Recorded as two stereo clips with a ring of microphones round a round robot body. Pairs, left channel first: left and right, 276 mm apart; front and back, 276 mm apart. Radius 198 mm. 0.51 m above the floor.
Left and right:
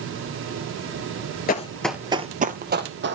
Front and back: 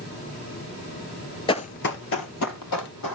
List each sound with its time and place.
1.5 s running footsteps: 60° left, 0.5 m; by 3.2 s 40° right, 1.3 m